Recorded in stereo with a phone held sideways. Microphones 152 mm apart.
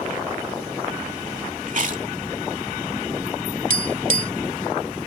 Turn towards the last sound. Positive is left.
turn(degrees=-65)  # may be behind; listen again after turning